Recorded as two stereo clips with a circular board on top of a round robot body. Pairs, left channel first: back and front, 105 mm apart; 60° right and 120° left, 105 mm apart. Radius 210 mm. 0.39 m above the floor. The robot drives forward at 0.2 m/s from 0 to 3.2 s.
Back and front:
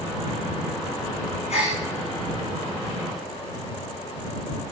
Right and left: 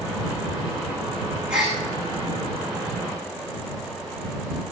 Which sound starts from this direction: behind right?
A gasp, at 1.5 s.